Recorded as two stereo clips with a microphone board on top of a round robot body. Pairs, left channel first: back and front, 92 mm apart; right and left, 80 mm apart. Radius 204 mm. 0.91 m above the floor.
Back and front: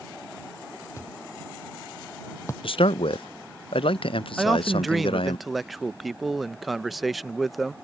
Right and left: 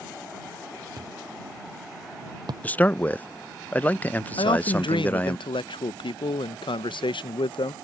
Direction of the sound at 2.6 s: 160° right.